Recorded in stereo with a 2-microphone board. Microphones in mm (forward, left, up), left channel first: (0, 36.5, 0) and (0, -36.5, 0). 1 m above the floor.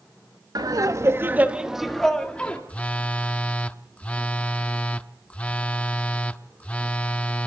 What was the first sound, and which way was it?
Laughter, 60° right (ahead or behind).